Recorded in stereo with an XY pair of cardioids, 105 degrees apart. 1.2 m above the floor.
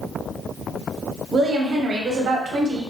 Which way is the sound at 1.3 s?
55° right.